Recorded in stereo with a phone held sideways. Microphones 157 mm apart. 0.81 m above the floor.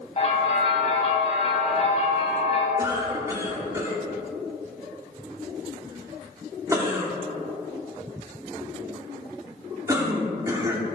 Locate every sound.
0.2 s a bell: 40° left (ahead or behind), 2.5 m
2.8 s a cough: 20° right (ahead or behind), 2.5 m